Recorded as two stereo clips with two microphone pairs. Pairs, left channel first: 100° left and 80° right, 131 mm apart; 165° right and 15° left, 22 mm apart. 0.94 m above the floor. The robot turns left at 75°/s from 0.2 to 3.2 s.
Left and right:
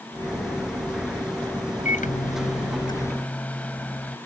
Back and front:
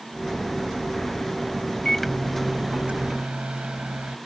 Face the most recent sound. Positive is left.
turn(degrees=20)